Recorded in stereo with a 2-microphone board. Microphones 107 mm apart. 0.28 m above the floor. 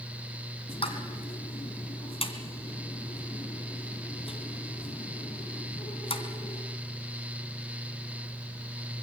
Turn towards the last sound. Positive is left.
turn(degrees=65)  # may be behind; listen again after turning